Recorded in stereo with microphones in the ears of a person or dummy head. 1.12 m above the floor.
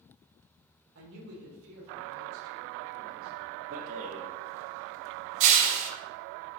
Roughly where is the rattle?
Right.